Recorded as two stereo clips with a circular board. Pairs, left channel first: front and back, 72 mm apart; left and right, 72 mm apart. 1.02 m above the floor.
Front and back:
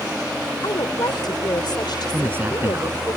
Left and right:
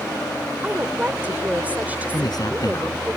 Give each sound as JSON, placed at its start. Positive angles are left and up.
{"t": 0.6, "sound": "a woman speaking", "azimuth_deg": -20}
{"t": 2.1, "sound": "a man speaking", "azimuth_deg": 120}